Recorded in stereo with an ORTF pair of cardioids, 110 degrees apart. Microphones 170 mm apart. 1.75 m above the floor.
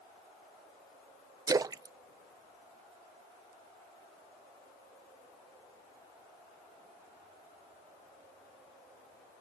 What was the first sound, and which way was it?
A splash, 20° right.